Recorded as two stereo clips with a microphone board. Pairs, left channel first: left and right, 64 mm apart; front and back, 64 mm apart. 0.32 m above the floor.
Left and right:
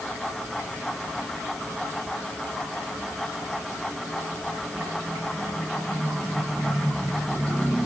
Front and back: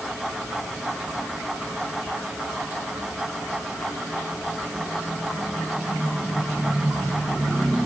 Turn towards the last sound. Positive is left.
No sound to turn to.